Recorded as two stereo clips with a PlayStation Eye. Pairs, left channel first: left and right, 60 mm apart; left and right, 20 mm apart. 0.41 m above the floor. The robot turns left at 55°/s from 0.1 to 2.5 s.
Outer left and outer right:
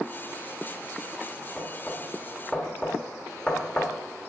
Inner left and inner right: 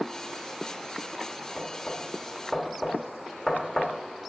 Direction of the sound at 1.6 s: 20° left (ahead or behind).